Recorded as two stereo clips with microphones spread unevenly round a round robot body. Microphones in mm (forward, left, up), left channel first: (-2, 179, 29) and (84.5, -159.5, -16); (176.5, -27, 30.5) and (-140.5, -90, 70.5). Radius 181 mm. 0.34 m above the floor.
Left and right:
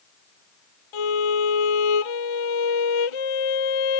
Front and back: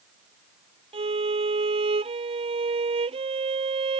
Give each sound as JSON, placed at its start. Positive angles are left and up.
{"t": 0.9, "sound": "a violin", "azimuth_deg": 115}